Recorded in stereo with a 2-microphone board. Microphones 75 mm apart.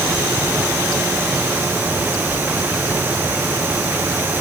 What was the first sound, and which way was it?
Only background noise.